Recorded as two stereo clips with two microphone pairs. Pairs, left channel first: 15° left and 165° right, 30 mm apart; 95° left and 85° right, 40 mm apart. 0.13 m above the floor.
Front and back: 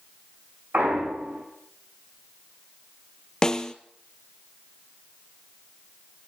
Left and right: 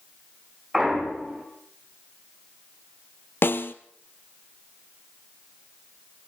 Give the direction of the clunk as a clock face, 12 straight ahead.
6 o'clock.